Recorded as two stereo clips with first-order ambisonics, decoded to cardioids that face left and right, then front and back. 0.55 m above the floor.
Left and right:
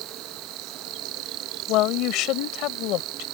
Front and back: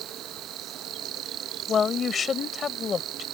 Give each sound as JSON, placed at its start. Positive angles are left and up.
{"t": 0.0, "sound": "an insect", "azimuth_deg": -125}
{"t": 1.7, "sound": "a woman speaking", "azimuth_deg": 65}